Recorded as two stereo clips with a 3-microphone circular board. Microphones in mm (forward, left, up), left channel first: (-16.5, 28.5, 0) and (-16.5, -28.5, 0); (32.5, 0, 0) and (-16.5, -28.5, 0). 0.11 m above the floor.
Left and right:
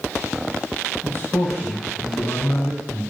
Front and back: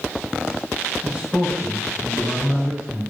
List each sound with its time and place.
1.0 s a man speaking: 140° left, 5 m